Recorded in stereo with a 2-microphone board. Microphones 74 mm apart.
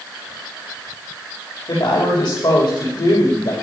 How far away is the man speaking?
About 10 m.